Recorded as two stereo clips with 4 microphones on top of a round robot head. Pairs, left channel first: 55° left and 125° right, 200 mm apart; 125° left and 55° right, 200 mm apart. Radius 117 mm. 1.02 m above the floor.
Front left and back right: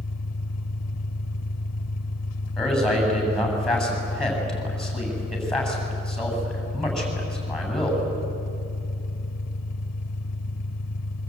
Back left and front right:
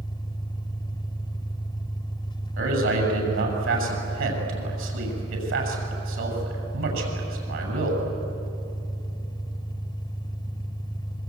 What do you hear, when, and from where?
0.0 s an engine running: 55° left, 0.9 m
2.6 s a man speaking: 30° right, 7.5 m